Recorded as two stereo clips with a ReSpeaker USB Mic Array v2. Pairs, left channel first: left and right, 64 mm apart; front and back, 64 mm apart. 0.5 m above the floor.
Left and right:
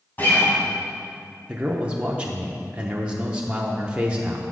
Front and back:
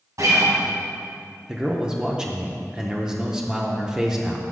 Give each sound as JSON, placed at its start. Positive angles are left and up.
{"t": 0.2, "sound": "a guitar", "azimuth_deg": 150, "distance_m": 2.0}
{"t": 1.5, "sound": "a man speaking", "azimuth_deg": -125, "distance_m": 0.7}